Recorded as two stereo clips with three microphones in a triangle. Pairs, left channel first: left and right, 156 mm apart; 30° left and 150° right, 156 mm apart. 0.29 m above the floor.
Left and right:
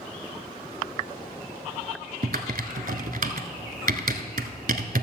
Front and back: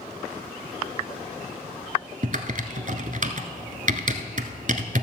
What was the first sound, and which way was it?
Typing on a keyboard, 115° right.